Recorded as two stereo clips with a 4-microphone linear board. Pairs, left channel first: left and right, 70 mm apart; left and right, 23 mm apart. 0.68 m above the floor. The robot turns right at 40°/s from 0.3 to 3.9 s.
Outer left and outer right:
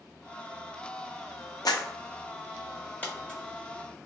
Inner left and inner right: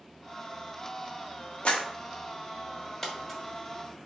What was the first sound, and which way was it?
A clap, 65° left (ahead or behind).